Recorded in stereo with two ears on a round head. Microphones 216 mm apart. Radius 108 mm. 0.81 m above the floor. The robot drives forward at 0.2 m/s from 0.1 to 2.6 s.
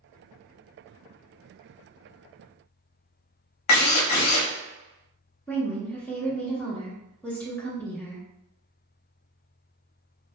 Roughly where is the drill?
Left.